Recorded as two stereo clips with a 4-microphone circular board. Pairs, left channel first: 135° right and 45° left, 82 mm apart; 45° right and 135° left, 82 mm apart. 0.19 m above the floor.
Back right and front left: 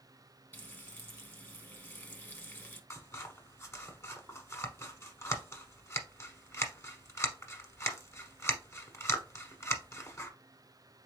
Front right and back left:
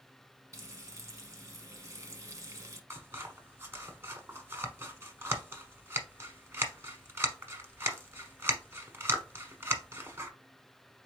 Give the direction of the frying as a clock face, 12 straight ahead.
6 o'clock.